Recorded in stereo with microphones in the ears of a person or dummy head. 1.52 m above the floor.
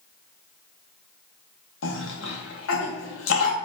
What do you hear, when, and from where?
1.8 s a cough: 75° left (ahead or behind), 1.8 m